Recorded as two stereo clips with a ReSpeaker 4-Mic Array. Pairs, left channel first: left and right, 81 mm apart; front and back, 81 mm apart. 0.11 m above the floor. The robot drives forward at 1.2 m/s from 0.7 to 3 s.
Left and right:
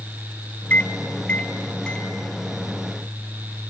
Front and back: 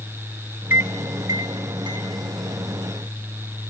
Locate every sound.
0.7 s a microwave: 135° left, 1.0 m; by 2.1 s 170° left, 2.5 m